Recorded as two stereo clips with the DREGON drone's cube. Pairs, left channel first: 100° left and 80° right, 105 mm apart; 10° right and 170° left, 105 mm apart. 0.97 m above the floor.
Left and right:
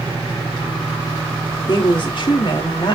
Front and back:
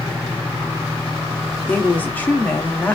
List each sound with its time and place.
1.7 s a woman speaking: 65° left, 2.0 m